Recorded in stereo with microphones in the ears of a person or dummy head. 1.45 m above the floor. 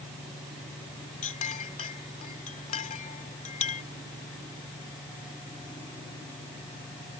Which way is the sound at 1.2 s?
35° left (ahead or behind).